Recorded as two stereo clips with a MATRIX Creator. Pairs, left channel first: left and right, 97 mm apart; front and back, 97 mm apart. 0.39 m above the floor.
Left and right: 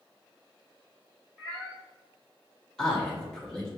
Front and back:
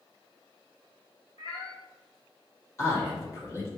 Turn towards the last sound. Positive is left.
turn(degrees=15)